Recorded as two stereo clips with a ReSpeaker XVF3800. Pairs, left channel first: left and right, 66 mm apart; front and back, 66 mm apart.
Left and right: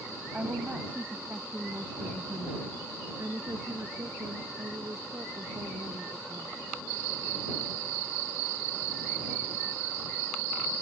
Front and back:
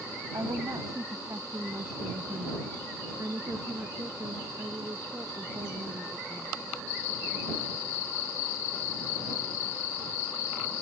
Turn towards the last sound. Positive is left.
turn(degrees=-135)